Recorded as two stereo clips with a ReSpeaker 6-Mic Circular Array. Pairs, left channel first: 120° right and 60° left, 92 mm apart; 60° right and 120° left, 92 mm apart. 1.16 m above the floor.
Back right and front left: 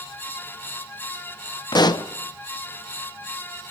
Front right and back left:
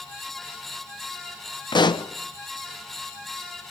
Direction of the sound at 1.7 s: 90° right.